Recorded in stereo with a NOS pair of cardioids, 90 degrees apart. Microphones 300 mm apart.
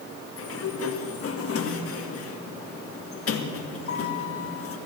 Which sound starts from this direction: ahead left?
A sliding door, at 0.4 s.